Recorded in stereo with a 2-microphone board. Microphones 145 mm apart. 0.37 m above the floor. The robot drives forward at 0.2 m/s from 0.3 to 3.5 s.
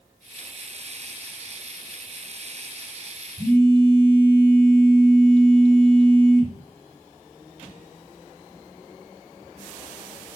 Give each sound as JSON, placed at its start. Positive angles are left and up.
{"t": 3.4, "sound": "a phone buzzing", "side_deg": -35, "distance_m": 3.5}